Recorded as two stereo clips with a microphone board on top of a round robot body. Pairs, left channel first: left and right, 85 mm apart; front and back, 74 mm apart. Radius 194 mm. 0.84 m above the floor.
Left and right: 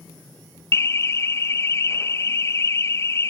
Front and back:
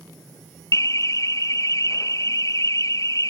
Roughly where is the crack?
No crack in this recording.